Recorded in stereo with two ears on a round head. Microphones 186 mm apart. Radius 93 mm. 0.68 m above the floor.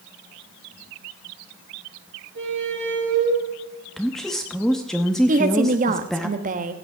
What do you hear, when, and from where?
2.4 s a squeak: 60° right (ahead or behind), 4.5 m
4.0 s a woman speaking: centre (ahead or behind), 0.9 m
5.3 s a woman speaking: 40° right (ahead or behind), 0.9 m